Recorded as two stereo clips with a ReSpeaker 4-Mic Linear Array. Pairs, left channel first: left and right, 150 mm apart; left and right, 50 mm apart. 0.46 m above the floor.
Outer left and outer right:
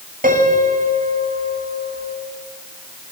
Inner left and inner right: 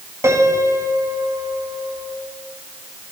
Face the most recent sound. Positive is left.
turn(degrees=-70)  # may be behind; listen again after turning